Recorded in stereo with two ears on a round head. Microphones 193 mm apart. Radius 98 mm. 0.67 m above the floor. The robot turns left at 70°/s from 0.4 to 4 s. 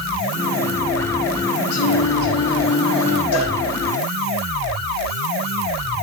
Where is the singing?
85° left, 9.5 m; by 3.2 s 25° right, 9.5 m.